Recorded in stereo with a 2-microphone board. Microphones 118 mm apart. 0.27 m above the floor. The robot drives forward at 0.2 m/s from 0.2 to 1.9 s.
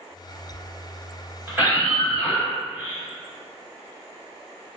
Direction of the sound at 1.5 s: 20° right (ahead or behind).